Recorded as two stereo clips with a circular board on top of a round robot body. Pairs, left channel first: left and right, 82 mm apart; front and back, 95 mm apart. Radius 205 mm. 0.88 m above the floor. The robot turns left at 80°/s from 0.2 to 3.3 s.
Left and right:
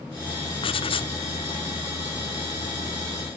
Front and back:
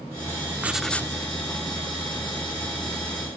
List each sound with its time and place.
0.6 s writing: 110° left; by 1.1 s 65° left